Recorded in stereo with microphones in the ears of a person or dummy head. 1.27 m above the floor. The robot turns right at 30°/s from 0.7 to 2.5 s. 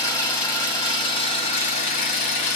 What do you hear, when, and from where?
0.0 s an engine running: 30° left, 1.4 m; by 2.6 s 85° left, 1.4 m